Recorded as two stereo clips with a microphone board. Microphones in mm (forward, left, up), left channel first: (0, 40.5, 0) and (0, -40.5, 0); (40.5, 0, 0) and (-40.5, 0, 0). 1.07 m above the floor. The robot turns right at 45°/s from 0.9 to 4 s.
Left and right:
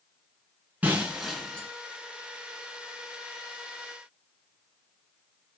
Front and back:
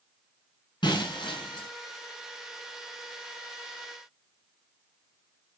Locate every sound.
0.8 s breaking glass: 20° right, 5 m; by 1.7 s 15° left, 5 m